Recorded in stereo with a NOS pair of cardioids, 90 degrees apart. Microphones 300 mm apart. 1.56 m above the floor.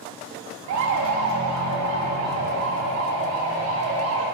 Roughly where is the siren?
Right.